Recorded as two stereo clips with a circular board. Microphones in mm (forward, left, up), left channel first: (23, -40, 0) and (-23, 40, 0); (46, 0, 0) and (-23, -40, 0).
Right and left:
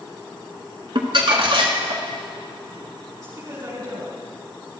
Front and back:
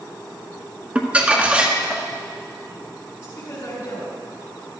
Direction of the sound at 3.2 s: 70° left.